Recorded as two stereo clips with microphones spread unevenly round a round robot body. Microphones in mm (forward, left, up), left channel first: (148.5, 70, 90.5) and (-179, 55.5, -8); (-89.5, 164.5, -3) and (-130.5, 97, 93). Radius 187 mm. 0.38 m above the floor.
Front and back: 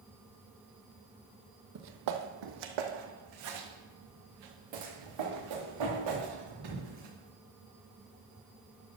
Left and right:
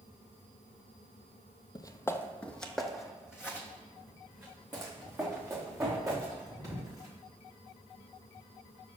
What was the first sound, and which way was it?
Footsteps, 130° left.